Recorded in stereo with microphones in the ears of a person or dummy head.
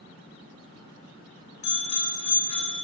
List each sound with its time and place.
1.6 s a bicycle bell: 35° left (ahead or behind), 3 m